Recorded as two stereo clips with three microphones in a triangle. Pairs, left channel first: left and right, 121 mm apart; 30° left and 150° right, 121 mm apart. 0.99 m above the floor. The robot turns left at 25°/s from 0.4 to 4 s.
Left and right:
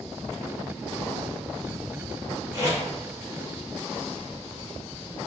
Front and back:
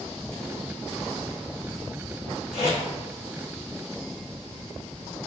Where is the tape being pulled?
150° right, 1.7 m; by 2.8 s 160° right, 1.7 m.